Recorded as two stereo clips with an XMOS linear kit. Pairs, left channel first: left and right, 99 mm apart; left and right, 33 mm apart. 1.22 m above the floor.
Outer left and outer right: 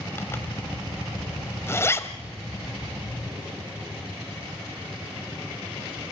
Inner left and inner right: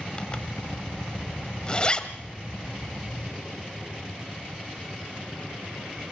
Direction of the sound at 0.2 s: 25° left (ahead or behind).